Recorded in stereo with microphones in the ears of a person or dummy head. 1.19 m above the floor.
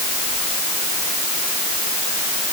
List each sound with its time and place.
Only background noise.